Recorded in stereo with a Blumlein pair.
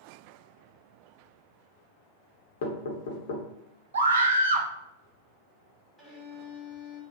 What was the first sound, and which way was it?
Knocking, 55° left.